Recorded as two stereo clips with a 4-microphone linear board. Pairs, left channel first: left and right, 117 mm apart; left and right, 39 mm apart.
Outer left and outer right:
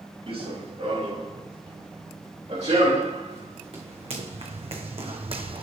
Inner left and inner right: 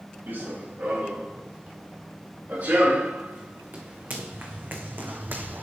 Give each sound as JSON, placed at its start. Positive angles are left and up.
{"t": 0.3, "sound": "running footsteps", "side_deg": -55, "distance_m": 4.0}